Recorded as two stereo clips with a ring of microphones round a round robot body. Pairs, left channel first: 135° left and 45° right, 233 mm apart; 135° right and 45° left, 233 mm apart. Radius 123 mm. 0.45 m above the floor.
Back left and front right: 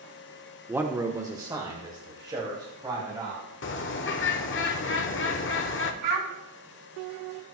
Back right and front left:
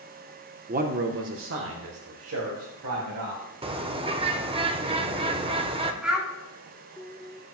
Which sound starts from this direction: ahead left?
A man speaking, at 0.7 s.